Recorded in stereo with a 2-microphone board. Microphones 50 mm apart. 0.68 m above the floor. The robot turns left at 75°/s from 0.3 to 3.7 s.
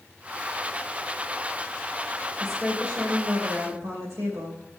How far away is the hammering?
No hammering in this recording.